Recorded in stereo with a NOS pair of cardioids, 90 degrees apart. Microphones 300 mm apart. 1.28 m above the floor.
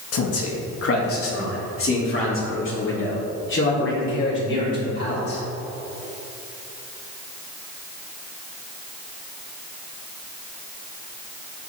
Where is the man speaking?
55° left, 1.8 m; by 5.4 s 40° left, 5 m.